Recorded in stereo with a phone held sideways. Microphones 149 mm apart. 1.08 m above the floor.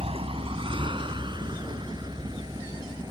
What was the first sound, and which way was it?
A vehicle, 40° right (ahead or behind).